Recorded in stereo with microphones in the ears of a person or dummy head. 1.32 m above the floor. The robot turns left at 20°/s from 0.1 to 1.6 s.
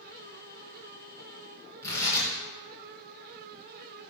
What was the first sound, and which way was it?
Tearing paper, 20° left (ahead or behind).